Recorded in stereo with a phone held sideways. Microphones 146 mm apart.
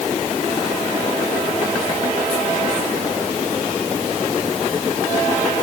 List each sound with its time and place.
Only background noise.